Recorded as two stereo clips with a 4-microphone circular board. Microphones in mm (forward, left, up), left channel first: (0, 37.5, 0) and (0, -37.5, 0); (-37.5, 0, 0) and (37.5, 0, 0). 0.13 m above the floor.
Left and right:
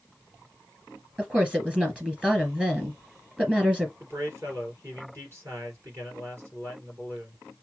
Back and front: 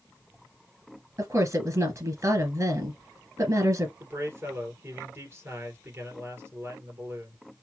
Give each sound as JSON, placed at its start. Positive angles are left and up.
{"t": 1.2, "sound": "a woman speaking", "azimuth_deg": -20, "distance_m": 2.5}
{"t": 4.0, "sound": "a man speaking", "azimuth_deg": -50, "distance_m": 3.0}